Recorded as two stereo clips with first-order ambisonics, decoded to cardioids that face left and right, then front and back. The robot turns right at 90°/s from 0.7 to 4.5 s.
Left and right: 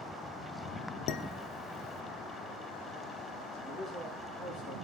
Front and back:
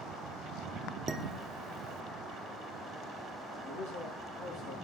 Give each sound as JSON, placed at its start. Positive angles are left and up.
{"t": 1.1, "sound": "dishes clattering", "azimuth_deg": 105, "distance_m": 1.0}
{"t": 3.6, "sound": "a man speaking", "azimuth_deg": -35, "distance_m": 9.0}